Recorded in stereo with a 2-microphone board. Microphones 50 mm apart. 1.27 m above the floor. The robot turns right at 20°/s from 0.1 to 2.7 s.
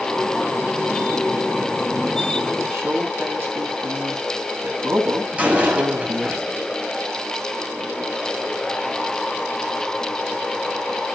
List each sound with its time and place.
2.7 s a man speaking: 55° right (ahead or behind), 8 m
5.3 s a door slam: 25° right (ahead or behind), 6.5 m